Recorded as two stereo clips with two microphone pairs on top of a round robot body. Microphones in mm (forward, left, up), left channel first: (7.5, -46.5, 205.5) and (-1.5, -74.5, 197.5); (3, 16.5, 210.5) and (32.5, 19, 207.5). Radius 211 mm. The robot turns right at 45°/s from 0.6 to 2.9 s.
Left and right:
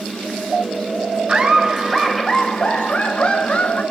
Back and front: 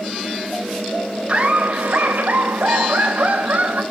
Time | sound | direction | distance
1.3 | laughter | 55° right | 4 m